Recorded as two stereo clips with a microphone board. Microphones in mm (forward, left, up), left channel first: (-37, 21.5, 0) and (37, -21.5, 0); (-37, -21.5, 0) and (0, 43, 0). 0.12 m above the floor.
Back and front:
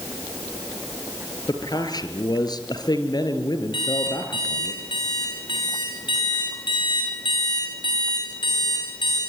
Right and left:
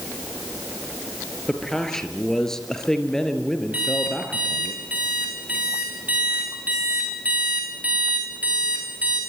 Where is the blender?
I don't hear a blender.